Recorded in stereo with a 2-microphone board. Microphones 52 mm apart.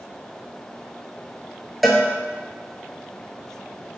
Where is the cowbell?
Centre (ahead or behind), 0.7 m.